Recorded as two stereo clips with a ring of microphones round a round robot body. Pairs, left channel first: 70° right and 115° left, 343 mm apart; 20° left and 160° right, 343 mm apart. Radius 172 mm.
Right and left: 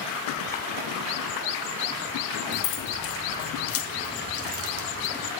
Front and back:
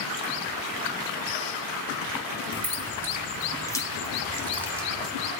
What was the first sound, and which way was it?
Keys jangling, 60° right.